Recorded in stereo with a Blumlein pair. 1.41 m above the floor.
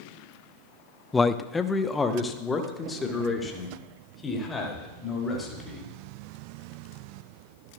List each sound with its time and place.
1.1 s a man speaking: 10° left, 0.5 m; by 5.9 s 15° left, 4 m